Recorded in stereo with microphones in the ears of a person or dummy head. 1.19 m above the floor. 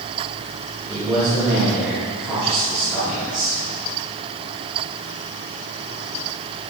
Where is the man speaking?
15° right (ahead or behind), 2.5 m.